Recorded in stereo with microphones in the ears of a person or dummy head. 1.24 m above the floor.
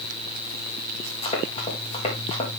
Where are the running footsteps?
40° left (ahead or behind), 4 m.